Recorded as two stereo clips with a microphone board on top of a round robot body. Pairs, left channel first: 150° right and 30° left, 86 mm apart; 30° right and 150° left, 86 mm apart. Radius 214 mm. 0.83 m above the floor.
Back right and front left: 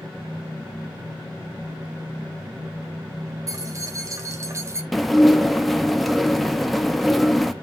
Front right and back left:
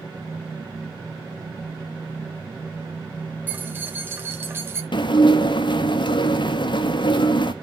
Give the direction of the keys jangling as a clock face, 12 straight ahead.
9 o'clock.